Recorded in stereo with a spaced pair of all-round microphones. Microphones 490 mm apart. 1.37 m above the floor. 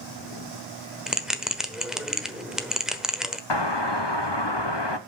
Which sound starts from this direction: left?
A doorbell, at 3.5 s.